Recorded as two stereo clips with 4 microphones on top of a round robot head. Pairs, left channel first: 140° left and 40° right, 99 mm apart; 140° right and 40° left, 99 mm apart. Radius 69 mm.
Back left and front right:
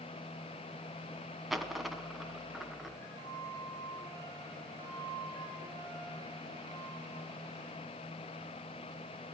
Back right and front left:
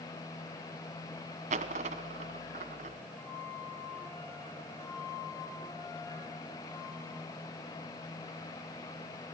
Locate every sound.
1.5 s a dropped coin: 45° left, 1.1 m
3.1 s a flute: 75° right, 7.5 m